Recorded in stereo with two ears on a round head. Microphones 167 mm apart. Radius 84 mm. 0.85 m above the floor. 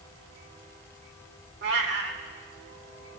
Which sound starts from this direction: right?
A cat meowing, at 1.6 s.